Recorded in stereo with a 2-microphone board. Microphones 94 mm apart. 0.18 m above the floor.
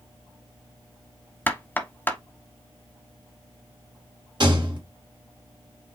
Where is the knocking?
20° left (ahead or behind), 0.8 m.